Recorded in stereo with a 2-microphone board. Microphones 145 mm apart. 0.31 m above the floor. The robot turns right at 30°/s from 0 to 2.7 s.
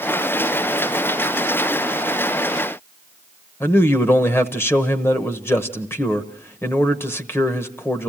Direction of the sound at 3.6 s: 15° left (ahead or behind).